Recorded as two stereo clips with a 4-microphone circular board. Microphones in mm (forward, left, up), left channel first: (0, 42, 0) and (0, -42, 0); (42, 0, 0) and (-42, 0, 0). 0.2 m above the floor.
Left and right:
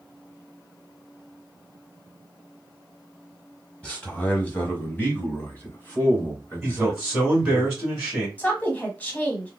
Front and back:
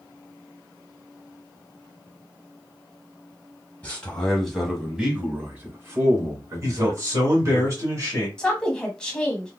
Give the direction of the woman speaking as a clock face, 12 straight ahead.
10 o'clock.